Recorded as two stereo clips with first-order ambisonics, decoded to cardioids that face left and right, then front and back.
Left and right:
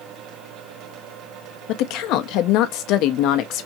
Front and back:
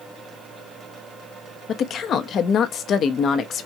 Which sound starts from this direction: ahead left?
A woman speaking, at 1.7 s.